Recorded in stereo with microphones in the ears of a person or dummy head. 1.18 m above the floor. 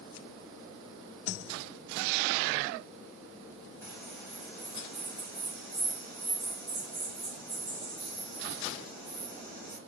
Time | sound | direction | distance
3.8 | a bird | 25° left (ahead or behind) | 0.9 m